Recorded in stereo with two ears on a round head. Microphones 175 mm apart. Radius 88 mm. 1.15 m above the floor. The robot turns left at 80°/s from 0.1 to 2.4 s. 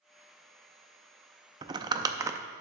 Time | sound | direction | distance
1.6 | crumpling | 20° right (ahead or behind) | 0.5 m